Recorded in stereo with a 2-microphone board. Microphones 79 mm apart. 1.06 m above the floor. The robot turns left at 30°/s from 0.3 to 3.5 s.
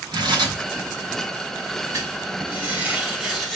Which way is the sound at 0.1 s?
80° right.